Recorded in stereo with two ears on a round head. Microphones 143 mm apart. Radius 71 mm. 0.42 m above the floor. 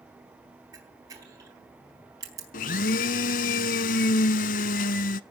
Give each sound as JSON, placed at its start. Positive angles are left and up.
{"t": 0.7, "sound": "a camera shutter", "side_deg": -20, "distance_m": 4.0}
{"t": 2.5, "sound": "a blender", "side_deg": 55, "distance_m": 0.6}